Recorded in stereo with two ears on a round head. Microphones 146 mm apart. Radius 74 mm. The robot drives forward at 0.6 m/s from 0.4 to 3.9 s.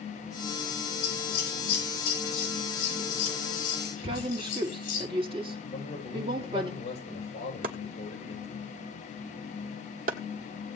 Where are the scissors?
70° left (ahead or behind), 7 m; by 5.0 s 55° left (ahead or behind), 7.5 m.